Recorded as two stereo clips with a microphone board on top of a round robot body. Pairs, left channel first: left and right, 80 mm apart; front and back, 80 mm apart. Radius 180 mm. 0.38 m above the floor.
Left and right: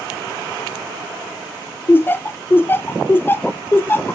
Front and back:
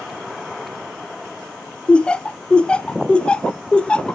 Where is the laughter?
65° left, 0.8 m.